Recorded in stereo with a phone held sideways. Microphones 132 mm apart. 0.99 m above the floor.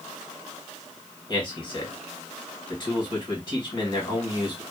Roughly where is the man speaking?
Left.